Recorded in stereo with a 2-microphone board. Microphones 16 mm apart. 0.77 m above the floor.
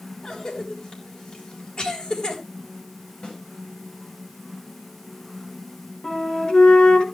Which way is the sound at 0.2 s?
70° left (ahead or behind).